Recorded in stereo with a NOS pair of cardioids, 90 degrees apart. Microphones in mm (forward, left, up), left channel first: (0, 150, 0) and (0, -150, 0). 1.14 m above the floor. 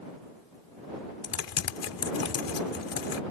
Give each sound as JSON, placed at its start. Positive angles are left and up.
{"t": 1.2, "sound": "typing on a keyboard", "azimuth_deg": 55}